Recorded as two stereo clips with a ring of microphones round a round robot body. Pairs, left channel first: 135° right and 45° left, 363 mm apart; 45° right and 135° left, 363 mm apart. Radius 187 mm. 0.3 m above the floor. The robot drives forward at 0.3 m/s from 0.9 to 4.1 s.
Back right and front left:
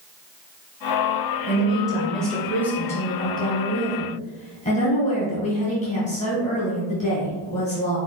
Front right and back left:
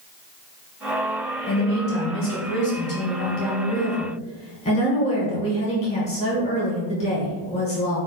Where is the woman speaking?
40° right, 1.6 m; by 8.0 s 90° right, 1.4 m.